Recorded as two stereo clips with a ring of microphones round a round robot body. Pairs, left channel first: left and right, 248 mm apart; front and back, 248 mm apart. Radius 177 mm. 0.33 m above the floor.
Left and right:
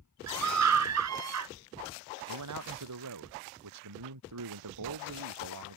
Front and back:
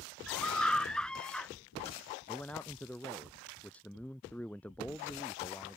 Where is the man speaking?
85° right.